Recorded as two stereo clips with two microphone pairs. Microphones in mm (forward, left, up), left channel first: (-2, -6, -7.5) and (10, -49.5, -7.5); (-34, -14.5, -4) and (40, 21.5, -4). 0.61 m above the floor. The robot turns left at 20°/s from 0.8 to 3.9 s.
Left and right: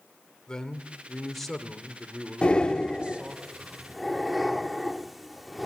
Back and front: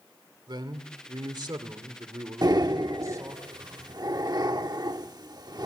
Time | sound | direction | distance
0.5 | a man speaking | 30° left | 2 m
2.4 | breathing | 40° left | 1.1 m